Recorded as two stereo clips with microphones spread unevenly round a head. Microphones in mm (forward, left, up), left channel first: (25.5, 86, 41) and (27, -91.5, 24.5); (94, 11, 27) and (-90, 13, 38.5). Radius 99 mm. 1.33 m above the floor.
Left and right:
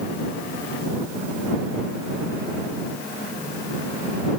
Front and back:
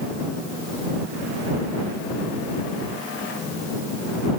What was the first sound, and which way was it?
Only background noise.